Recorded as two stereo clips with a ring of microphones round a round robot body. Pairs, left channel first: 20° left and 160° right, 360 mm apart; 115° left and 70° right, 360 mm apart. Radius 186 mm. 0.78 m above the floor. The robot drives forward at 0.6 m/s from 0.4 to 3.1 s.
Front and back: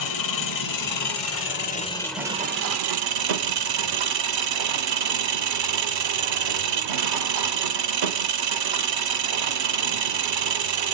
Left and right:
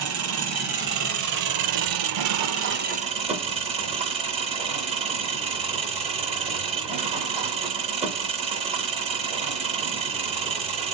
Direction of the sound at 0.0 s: 15° right.